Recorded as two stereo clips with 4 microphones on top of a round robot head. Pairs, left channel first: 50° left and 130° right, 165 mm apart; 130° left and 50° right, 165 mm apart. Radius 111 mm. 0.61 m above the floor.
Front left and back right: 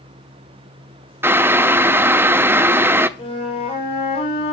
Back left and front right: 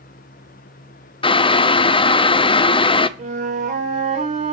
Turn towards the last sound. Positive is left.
turn(degrees=-5)